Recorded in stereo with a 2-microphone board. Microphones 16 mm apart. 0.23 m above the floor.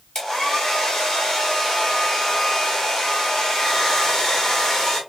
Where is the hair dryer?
45° left (ahead or behind), 1.5 m.